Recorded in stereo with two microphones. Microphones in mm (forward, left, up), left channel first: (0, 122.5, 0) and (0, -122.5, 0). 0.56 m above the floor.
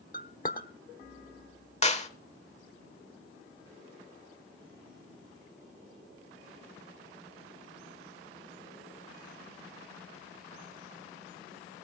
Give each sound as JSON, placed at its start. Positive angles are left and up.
{"t": 0.1, "sound": "a clink", "side_deg": 35, "distance_m": 1.0}
{"t": 1.8, "sound": "a clap", "side_deg": 25, "distance_m": 1.3}